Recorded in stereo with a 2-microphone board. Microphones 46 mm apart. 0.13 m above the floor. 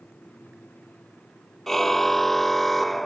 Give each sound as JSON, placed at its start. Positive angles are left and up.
{"t": 1.7, "sound": "a car horn", "side_deg": 10}